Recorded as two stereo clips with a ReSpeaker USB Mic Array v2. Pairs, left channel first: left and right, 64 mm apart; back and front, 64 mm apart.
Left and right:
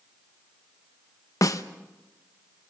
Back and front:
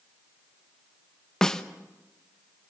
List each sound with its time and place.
1.4 s a snare drum: 100° left, 0.9 m